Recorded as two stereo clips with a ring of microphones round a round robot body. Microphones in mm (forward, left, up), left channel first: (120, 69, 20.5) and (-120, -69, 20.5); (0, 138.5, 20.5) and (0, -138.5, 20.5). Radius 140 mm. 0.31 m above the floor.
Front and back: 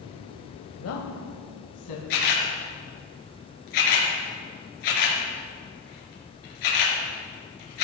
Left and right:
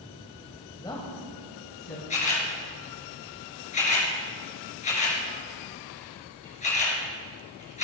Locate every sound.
0.8 s a woman speaking: 15° left, 1.2 m; by 2.0 s 35° left, 2.5 m
2.1 s a camera shutter: 25° left, 3.5 m